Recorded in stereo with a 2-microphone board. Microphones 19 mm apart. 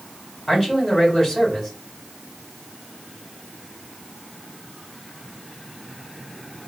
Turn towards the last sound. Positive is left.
turn(degrees=30)  # may be behind; listen again after turning